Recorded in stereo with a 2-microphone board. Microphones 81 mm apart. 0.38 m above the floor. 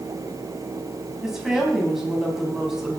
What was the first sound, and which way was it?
A woman speaking, 5° right (ahead or behind).